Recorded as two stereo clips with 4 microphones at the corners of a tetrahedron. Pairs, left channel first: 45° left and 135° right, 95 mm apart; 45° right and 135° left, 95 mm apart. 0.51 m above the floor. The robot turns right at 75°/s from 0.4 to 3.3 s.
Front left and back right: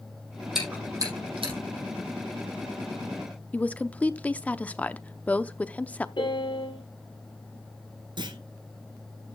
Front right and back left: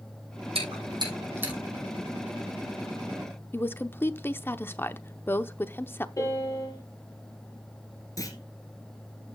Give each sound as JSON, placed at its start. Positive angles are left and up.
{"t": 0.6, "sound": "chewing", "azimuth_deg": 135, "distance_m": 6.0}
{"t": 3.5, "sound": "a woman speaking", "azimuth_deg": -15, "distance_m": 0.7}
{"t": 6.2, "sound": "a piano", "azimuth_deg": 10, "distance_m": 5.0}
{"t": 8.2, "sound": "a clunk", "azimuth_deg": -100, "distance_m": 2.0}